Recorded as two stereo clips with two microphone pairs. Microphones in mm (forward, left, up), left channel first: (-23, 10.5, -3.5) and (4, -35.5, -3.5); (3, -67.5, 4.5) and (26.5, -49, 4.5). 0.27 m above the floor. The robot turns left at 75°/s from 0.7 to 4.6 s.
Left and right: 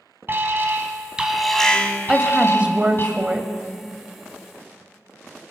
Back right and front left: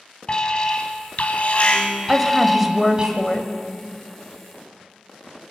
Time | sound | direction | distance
0.3 | an alarm | 90° right | 1.8 m
2.1 | a woman speaking | 5° right | 1.0 m